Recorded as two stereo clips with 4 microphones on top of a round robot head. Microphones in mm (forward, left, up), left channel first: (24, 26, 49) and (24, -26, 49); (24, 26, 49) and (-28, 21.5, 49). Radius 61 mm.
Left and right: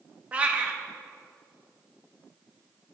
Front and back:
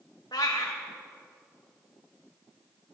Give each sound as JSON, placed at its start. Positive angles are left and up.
{"t": 0.3, "sound": "a cat meowing", "azimuth_deg": -25, "distance_m": 1.0}